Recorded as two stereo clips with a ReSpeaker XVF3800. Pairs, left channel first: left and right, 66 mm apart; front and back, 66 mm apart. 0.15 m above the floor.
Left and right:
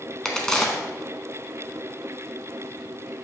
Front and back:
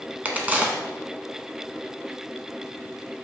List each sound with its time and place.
0.2 s a crack: 155° left, 0.7 m